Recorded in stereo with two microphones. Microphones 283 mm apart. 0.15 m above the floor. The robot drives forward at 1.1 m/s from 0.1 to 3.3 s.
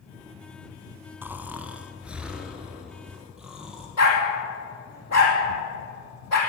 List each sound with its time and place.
1.2 s snoring: 5° right (ahead or behind), 0.8 m; by 3.9 s centre (ahead or behind), 3 m
4.0 s a dog barking: 65° left (ahead or behind), 3.5 m